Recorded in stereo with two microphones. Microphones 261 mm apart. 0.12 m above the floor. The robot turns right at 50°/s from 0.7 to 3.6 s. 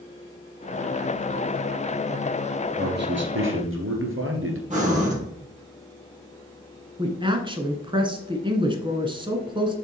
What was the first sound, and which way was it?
A man speaking, 135° right.